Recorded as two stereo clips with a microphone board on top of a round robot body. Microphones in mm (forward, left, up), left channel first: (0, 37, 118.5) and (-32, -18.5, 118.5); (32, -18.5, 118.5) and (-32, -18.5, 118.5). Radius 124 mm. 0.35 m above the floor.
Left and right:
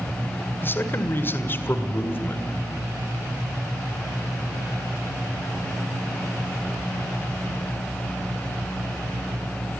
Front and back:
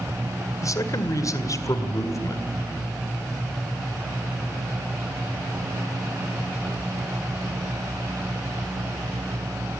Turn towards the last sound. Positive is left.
turn(degrees=10)